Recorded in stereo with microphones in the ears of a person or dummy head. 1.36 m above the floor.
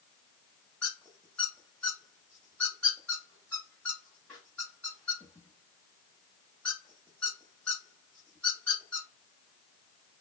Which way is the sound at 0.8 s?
Centre (ahead or behind).